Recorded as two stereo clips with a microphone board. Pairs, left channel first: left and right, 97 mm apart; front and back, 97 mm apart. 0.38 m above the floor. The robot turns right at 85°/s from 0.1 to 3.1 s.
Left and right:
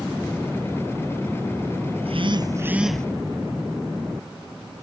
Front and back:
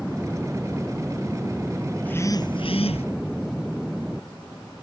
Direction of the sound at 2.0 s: 80° right.